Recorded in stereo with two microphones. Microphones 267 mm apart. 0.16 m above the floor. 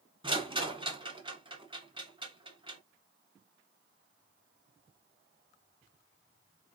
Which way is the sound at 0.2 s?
20° right (ahead or behind).